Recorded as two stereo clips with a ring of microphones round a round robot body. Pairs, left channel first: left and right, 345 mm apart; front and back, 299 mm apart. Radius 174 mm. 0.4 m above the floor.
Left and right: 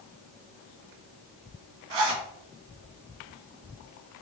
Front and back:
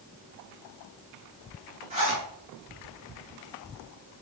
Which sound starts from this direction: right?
A zipper, at 1.9 s.